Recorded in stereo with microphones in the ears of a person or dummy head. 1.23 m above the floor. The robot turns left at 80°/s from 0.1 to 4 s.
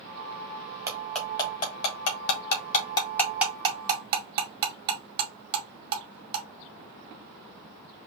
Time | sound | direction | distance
0.9 | cutlery clinking | 15° right (ahead or behind) | 1.8 m